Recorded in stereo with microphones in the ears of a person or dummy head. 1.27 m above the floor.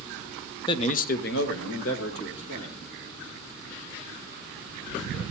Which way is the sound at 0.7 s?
20° left (ahead or behind).